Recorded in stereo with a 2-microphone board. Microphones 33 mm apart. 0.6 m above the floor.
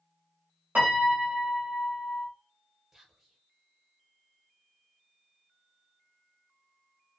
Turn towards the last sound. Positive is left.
turn(degrees=-10)  # may be behind; listen again after turning